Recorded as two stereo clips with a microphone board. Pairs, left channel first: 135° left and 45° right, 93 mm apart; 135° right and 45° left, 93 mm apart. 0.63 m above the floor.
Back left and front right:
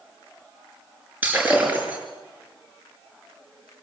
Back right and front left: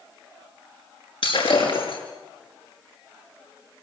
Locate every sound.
1.2 s breaking glass: 115° right, 6 m